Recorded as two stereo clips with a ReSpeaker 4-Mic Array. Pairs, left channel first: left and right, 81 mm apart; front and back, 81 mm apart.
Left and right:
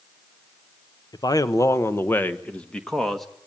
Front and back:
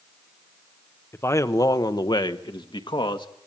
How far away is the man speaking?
About 1.0 m.